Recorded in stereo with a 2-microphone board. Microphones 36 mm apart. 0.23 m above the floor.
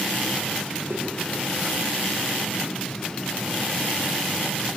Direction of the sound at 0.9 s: 80° right.